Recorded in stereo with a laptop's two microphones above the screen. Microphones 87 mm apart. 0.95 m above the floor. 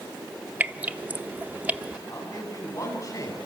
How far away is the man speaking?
About 9.5 m.